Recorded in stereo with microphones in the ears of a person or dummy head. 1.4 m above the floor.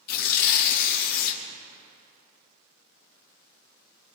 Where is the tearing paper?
60° left (ahead or behind), 1.7 m.